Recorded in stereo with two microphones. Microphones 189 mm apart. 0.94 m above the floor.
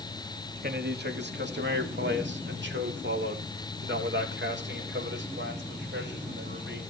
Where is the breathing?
No breathing in this recording.